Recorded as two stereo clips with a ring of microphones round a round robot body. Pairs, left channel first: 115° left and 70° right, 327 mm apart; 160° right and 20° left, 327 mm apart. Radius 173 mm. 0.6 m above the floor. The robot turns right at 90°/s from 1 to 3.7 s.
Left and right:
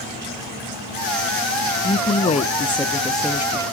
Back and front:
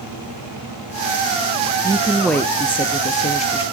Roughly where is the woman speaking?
Left.